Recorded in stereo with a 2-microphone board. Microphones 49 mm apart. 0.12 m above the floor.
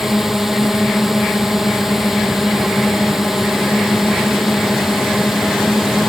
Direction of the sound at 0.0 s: 5° right (ahead or behind).